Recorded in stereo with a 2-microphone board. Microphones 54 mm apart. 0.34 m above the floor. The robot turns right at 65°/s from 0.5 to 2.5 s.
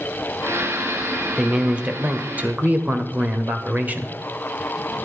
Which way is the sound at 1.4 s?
10° right (ahead or behind).